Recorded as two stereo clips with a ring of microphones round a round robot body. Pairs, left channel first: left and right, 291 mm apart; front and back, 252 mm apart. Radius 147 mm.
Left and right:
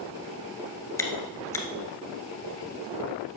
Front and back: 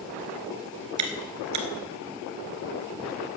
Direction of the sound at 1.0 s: 170° left.